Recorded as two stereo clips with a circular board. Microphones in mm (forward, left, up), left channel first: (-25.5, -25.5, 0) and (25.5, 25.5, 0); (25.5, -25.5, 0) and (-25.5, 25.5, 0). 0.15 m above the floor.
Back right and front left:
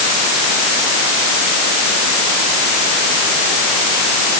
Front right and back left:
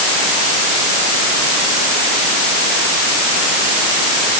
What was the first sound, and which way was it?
Only background noise.